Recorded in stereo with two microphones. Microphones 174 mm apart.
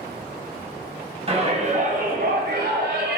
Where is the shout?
35° right (ahead or behind), 3.5 m; by 3.2 s 75° right (ahead or behind), 2.5 m.